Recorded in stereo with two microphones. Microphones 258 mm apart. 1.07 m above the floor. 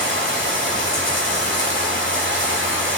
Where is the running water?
50° right (ahead or behind), 3.5 m.